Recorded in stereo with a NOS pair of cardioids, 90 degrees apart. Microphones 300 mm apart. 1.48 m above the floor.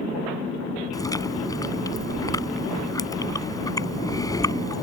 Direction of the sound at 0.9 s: 10° left.